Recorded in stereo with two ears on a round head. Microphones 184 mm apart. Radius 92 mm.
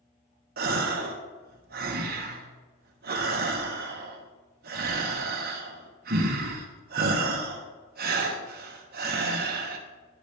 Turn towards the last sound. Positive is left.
turn(degrees=-45)  # may be behind; listen again after turning